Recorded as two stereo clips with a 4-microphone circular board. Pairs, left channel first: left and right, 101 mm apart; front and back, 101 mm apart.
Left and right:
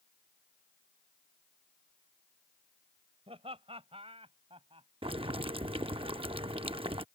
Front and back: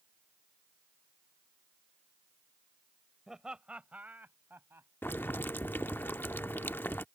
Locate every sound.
3.3 s laughter: 95° right; by 4.9 s 115° right
5.0 s boiling: 70° right